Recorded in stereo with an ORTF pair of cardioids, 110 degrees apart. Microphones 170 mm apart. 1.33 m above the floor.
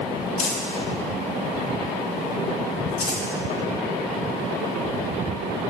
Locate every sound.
0.4 s crumpling: 65° left, 1.8 m